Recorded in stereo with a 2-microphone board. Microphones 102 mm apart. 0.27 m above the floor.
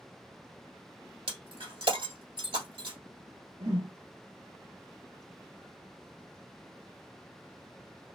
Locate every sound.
1.3 s breaking glass: 60° right (ahead or behind), 1.4 m
3.6 s a whoosh: 65° right (ahead or behind), 1.1 m